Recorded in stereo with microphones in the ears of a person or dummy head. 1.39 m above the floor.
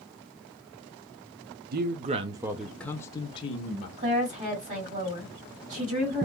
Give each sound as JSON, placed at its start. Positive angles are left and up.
{"t": 1.7, "sound": "a man speaking", "side_deg": -50, "distance_m": 0.6}
{"t": 4.0, "sound": "a woman speaking", "side_deg": -40, "distance_m": 2.0}